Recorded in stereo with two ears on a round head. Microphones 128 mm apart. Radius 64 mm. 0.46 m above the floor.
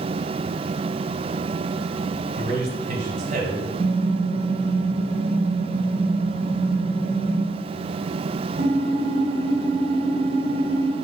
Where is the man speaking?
50° right (ahead or behind), 1.8 m.